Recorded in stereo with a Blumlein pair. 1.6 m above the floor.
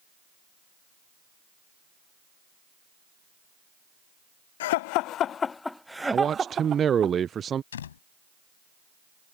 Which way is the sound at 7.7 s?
65° left.